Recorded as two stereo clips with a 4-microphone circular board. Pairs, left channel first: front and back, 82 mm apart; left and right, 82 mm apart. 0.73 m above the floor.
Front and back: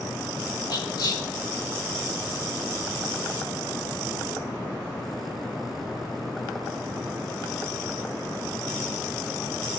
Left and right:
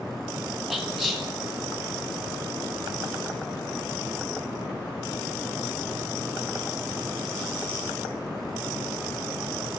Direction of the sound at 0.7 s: Straight ahead.